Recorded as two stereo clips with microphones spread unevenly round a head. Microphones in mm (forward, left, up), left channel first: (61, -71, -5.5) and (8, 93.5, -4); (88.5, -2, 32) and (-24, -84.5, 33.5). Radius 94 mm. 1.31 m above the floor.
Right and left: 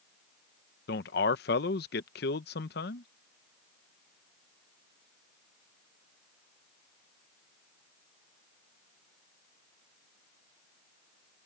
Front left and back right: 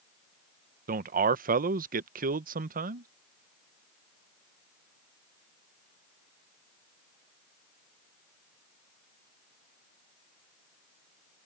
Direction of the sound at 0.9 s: 115° right.